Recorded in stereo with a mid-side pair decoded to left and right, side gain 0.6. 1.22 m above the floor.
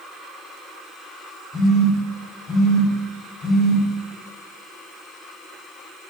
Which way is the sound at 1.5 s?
30° left.